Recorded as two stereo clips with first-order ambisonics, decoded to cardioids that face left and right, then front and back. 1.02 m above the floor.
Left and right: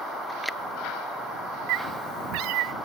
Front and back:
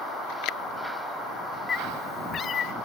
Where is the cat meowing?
65° right; by 2.7 s 60° right.